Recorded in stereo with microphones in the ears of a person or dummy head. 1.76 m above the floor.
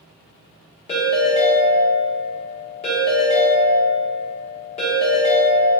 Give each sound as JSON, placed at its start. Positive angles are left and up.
{"t": 0.9, "sound": "a ringtone", "side_deg": 35, "distance_m": 1.2}